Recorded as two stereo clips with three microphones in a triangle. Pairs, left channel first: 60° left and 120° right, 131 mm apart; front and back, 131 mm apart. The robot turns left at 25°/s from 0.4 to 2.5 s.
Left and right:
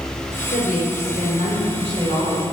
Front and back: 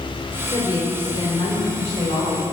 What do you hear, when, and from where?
0.5 s a woman speaking: 60° left, 2.0 m; by 2.4 s 15° left, 2.0 m